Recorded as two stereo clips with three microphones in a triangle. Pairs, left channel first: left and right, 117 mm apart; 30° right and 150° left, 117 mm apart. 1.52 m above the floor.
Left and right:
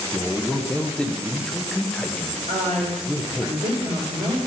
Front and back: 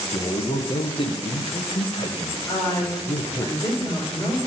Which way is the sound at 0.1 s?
10° left.